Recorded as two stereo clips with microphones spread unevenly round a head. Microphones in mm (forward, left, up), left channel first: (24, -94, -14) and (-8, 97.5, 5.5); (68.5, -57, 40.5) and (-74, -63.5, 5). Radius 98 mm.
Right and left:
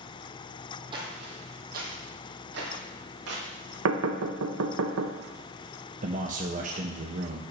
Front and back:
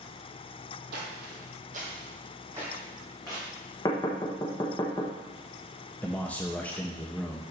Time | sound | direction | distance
0.9 | footsteps | 155° left | 2.0 m
3.9 | knocking | 75° left | 1.0 m
6.0 | a man speaking | 100° left | 0.7 m